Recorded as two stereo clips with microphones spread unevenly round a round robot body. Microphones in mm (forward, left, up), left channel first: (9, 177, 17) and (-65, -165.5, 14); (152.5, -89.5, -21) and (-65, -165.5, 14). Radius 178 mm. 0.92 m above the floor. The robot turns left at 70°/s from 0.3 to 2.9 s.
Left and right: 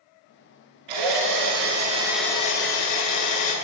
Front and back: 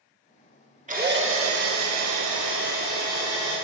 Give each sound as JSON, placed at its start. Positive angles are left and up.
{"t": 0.9, "sound": "a drill", "azimuth_deg": -100, "distance_m": 3.0}